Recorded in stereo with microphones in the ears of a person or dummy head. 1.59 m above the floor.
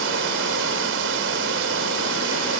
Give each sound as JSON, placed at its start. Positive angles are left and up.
{"t": 0.0, "sound": "running water", "side_deg": -75}